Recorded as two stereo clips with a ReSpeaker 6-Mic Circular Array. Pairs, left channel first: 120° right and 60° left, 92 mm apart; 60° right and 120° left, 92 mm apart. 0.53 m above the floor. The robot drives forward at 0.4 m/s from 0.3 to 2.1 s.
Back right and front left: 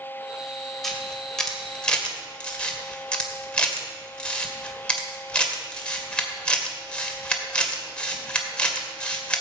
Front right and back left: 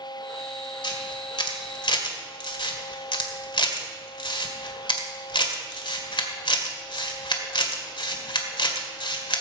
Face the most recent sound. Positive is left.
turn(degrees=-40)